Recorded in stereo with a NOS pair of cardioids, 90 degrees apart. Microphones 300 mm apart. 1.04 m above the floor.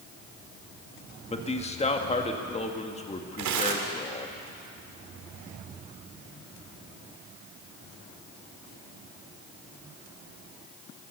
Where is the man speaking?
20° left, 1.8 m.